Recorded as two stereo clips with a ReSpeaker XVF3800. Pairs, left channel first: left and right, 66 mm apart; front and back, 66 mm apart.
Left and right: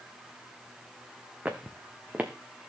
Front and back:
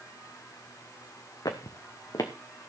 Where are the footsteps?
20° right, 1.4 m.